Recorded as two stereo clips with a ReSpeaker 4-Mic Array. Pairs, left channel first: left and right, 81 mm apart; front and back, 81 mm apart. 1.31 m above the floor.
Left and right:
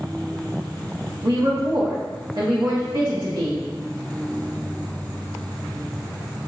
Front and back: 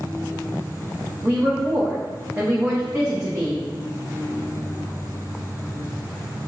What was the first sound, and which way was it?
A woman speaking, 120° right.